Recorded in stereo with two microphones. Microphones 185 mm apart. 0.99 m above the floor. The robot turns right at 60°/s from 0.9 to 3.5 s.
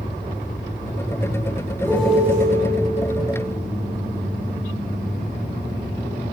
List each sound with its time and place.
1.8 s a piano: 165° left, 1.8 m; by 2.5 s 155° right, 1.8 m